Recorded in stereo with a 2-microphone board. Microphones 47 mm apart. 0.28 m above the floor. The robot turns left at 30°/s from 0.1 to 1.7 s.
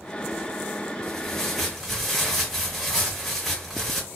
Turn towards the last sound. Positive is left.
turn(degrees=5)  # may be behind; listen again after turning